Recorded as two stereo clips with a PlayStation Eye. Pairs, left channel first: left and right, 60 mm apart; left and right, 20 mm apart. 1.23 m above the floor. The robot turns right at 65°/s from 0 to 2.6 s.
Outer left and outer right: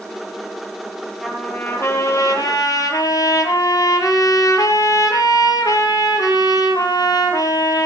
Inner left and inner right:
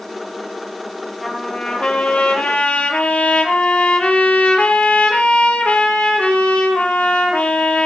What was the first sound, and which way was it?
A trumpet, 5° left.